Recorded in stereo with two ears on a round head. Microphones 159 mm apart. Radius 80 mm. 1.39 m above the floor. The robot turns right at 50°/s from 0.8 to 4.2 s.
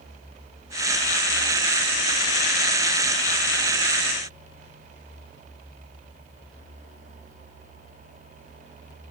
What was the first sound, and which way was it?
Only background noise.